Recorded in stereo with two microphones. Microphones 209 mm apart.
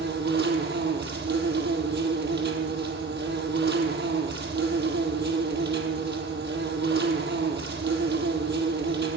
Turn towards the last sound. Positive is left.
turn(degrees=-55)  # may be behind; listen again after turning